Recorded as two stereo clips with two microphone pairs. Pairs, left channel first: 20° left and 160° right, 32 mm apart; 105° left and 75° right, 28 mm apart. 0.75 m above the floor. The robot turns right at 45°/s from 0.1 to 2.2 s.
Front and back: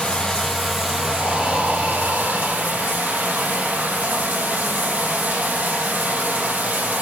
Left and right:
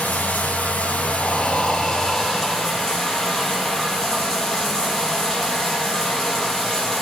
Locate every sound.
0.0 s running water: 80° left, 4 m; by 7.0 s 175° left, 4 m
1.2 s breathing: 135° left, 4.5 m; by 3.0 s 175° right, 4.5 m